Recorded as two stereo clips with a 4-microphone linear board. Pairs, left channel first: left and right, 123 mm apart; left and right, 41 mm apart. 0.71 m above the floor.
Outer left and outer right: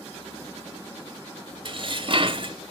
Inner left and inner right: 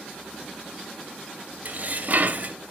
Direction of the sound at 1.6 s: 45° right (ahead or behind).